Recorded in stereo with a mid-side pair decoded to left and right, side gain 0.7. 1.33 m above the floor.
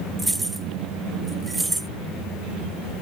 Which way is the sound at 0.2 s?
5° right.